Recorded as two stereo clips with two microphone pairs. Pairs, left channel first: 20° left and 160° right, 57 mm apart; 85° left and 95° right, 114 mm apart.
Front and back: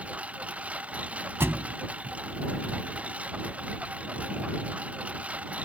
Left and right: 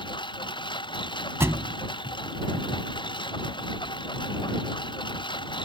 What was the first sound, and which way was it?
A lawn mower, 130° left.